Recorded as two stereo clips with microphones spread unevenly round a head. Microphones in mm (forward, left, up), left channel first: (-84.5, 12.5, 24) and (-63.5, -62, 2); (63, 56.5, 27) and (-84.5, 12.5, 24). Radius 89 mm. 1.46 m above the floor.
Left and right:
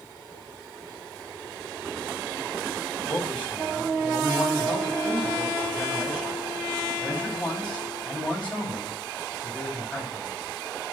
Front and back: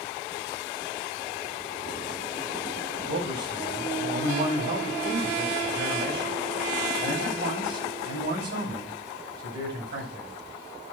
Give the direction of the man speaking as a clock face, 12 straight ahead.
6 o'clock.